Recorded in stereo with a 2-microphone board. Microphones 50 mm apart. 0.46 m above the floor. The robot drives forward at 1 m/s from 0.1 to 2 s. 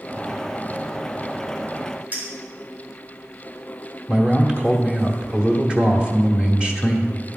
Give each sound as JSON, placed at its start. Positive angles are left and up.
{"t": 2.1, "sound": "a clink", "side_deg": -30, "distance_m": 3.5}
{"t": 4.1, "sound": "a man speaking", "side_deg": -20, "distance_m": 1.0}